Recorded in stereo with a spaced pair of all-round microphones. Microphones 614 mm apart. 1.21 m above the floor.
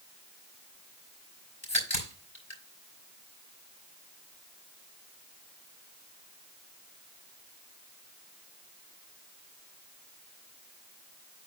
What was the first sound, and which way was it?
A crack, 45° left (ahead or behind).